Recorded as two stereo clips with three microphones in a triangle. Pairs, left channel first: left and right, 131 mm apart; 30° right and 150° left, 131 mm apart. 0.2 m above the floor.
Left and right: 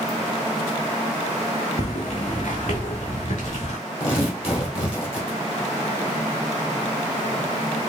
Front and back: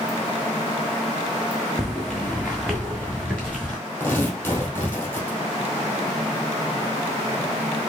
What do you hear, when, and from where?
1.8 s footsteps: 60° left, 0.8 m; by 3.8 s 55° left, 2 m
4.0 s tearing paper: 45° left, 2 m